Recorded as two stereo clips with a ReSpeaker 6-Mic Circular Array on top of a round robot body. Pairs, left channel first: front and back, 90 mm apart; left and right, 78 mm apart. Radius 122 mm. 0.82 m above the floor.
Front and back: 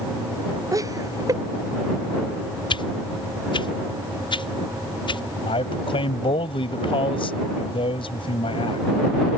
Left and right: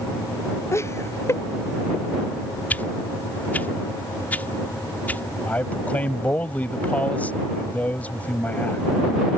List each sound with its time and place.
0.7 s laughter: 135° left
2.7 s a whoosh: 20° left
5.5 s a man speaking: 20° left